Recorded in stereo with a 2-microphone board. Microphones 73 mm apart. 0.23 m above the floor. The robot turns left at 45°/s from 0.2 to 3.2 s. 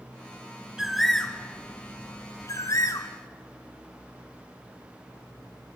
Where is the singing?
I don't hear singing.